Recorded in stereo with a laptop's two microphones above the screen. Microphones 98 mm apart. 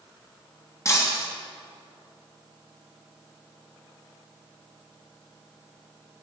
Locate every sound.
0.8 s breaking glass: 30° left (ahead or behind), 2 m